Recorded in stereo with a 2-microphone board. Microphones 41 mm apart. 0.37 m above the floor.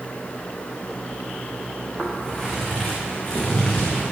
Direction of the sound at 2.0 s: 5° right (ahead or behind).